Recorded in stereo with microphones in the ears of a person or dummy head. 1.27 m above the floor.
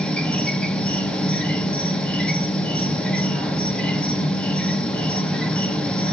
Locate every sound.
0.0 s an insect: 10° left (ahead or behind), 0.9 m